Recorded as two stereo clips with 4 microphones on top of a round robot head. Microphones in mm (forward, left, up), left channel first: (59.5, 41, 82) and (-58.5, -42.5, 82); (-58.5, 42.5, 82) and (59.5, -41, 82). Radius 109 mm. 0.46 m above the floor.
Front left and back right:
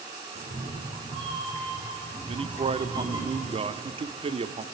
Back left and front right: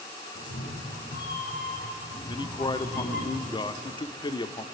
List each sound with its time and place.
0.3 s a cat meowing: 165° left, 5 m; by 3.3 s 150° left, 6 m
2.3 s a man speaking: 170° right, 1.1 m